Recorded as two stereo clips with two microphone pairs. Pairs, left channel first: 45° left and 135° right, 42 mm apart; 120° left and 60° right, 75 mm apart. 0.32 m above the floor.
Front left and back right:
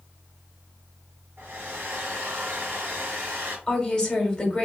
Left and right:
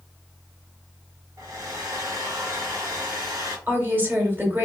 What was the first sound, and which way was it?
A hair dryer, 95° right.